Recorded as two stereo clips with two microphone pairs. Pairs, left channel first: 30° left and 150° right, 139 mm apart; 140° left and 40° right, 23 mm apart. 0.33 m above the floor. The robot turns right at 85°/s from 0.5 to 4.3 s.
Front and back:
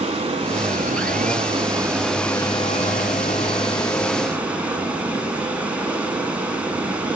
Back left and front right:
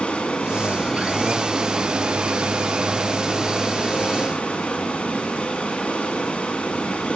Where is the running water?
165° left, 0.8 m; by 7.2 s 125° left, 0.8 m.